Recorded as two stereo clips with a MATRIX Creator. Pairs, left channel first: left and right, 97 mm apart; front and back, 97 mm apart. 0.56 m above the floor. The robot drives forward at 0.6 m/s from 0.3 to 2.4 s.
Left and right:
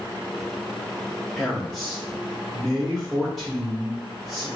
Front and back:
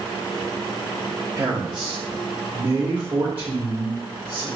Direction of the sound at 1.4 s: 170° left.